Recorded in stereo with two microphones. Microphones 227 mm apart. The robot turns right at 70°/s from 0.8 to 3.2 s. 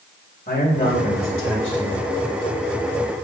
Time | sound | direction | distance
0.5 | a man speaking | 50° left | 2.5 m